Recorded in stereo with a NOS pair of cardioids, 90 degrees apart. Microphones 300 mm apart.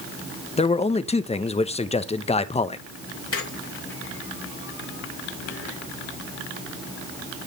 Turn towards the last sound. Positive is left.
turn(degrees=45)